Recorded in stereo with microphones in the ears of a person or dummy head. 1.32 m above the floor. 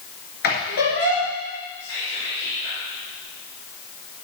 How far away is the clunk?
No clunk in this recording.